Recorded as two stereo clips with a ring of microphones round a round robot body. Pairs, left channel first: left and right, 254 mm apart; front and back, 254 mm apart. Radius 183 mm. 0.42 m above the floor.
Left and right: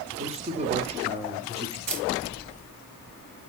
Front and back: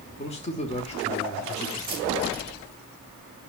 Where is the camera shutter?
105° right, 2.5 m.